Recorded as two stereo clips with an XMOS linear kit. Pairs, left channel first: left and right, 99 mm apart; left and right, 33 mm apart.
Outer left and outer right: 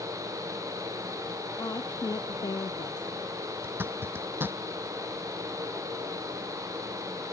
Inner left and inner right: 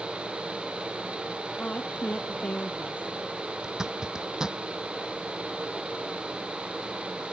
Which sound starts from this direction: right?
A zipper, at 3.6 s.